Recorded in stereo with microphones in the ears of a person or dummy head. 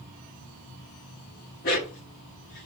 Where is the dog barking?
50° left (ahead or behind), 1.2 m; by 2.7 s 55° left (ahead or behind), 1.7 m.